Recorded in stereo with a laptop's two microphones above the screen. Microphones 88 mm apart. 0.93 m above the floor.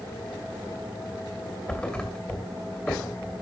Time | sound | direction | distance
1.7 | a thud | 10° left (ahead or behind) | 2 m